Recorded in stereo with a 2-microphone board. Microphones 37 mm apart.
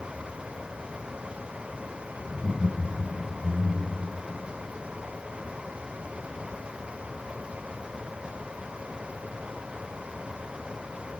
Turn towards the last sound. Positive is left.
turn(degrees=-40)  # may be behind; listen again after turning